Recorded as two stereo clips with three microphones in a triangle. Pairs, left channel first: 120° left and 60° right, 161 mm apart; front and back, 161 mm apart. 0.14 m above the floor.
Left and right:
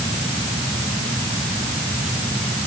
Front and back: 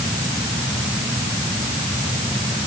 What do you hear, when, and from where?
Only background noise.